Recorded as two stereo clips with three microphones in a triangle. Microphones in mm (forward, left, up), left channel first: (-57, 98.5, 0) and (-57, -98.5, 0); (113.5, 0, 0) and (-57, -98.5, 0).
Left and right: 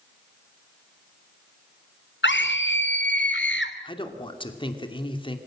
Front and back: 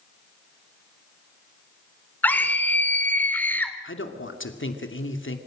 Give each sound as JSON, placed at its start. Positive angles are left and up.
{"t": 2.2, "sound": "a scream", "azimuth_deg": 110, "distance_m": 3.0}
{"t": 3.8, "sound": "a man speaking", "azimuth_deg": 25, "distance_m": 2.5}